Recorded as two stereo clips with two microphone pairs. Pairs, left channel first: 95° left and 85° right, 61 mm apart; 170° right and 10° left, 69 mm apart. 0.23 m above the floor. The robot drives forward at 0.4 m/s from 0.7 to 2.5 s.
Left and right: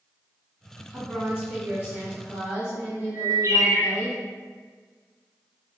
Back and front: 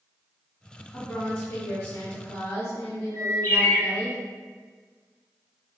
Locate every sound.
0.9 s a woman speaking: 105° right, 1.9 m; by 4.1 s 130° right, 2 m
3.1 s a bird: 110° right, 0.9 m